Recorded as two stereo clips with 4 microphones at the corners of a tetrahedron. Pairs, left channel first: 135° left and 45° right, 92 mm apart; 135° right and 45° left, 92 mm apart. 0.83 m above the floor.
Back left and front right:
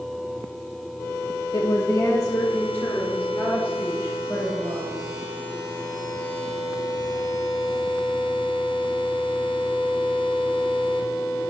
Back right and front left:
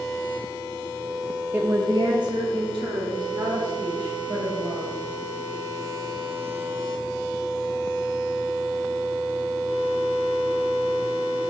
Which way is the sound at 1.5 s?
110° left.